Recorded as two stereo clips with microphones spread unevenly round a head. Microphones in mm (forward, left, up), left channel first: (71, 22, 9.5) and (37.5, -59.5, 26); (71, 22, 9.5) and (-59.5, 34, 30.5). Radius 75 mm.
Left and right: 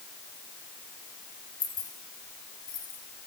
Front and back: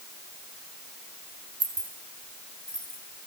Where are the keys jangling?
110° left, 2 m; by 3.0 s 85° left, 3.5 m.